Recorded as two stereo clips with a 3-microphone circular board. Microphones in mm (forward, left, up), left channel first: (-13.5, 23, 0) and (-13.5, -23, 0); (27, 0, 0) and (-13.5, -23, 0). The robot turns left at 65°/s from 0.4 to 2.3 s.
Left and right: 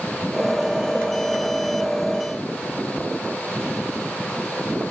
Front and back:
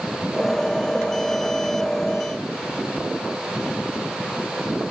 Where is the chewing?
I don't hear chewing.